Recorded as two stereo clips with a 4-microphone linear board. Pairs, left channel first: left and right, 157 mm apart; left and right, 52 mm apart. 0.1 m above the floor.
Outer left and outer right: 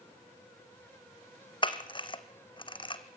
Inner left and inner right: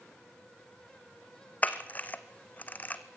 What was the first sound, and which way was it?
A camera shutter, 30° left (ahead or behind).